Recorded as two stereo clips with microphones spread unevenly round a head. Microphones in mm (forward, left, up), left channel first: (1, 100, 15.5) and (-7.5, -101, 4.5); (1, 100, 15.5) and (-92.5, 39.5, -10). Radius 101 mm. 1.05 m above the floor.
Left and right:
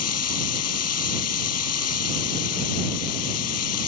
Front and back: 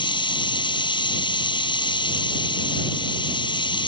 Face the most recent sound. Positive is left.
turn(degrees=75)